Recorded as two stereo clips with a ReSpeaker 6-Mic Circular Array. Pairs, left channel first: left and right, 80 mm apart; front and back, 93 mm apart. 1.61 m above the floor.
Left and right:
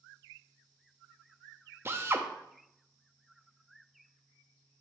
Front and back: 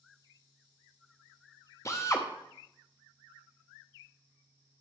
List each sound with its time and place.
1.9 s a drill: 45° right, 0.7 m